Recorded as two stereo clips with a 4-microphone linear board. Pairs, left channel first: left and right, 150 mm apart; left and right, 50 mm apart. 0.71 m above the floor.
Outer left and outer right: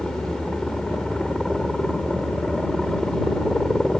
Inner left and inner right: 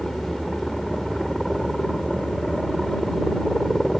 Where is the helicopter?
5° left (ahead or behind).